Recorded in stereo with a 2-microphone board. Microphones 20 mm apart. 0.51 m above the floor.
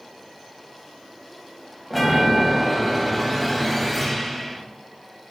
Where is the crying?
No crying in this recording.